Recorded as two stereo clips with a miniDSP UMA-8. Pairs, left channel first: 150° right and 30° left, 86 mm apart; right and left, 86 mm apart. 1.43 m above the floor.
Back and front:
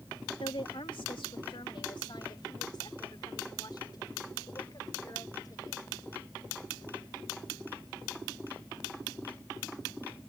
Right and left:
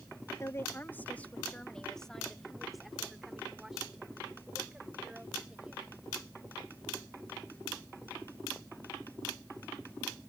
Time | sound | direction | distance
0.4 | a woman speaking | 145° right | ?